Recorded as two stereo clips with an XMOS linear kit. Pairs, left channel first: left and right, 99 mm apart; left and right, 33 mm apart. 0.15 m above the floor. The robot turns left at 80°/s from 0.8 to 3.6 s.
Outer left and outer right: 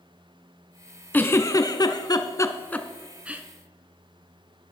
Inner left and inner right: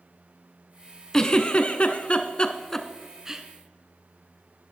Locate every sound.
1.1 s a giggle: 20° left (ahead or behind), 0.6 m; by 3.4 s 20° right (ahead or behind), 0.6 m